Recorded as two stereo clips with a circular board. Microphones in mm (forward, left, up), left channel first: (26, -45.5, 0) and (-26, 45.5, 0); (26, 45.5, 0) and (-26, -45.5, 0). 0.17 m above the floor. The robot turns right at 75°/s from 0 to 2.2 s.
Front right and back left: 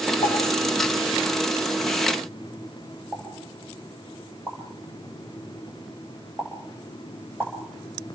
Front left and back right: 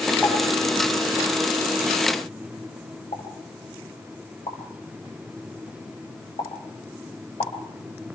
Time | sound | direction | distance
0.2 | a pop | 45° right | 7.5 m
3.1 | a pop | 50° left | 7 m